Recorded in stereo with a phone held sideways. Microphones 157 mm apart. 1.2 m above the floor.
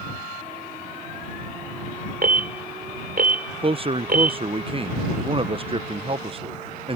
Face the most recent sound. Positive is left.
turn(degrees=-35)  # may be behind; listen again after turning